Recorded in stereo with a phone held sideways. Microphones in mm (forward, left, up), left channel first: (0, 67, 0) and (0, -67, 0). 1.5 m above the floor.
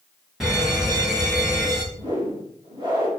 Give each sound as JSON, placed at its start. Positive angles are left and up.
{"t": 0.4, "sound": "a fire alarm", "side_deg": -5, "distance_m": 3.0}
{"t": 1.9, "sound": "a whoosh", "side_deg": -35, "distance_m": 3.5}